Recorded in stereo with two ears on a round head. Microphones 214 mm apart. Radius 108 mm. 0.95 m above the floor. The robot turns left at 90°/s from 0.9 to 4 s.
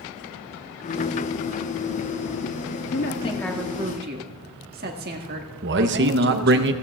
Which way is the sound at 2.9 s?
55° left.